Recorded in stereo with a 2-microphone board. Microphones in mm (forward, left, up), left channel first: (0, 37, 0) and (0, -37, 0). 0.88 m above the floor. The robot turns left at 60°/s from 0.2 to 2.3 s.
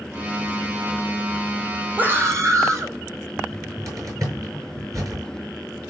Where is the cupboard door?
45° right (ahead or behind), 6 m.